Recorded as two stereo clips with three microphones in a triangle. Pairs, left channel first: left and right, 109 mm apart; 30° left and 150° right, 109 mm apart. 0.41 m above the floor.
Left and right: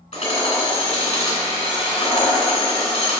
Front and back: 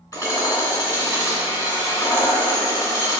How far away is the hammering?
About 2.5 m.